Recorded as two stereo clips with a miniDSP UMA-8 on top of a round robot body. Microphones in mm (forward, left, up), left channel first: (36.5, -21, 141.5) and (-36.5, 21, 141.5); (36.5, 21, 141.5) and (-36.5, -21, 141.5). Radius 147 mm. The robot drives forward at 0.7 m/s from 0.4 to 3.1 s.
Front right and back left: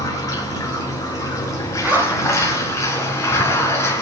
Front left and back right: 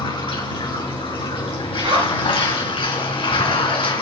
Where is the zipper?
140° right, 4 m.